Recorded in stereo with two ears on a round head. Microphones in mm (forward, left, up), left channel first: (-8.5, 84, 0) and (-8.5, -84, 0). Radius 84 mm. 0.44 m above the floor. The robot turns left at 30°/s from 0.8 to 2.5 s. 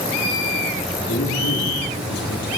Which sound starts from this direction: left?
A man speaking, at 1.1 s.